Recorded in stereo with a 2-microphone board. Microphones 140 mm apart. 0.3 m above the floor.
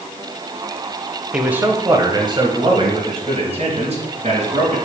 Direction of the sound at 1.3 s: 5° right (ahead or behind).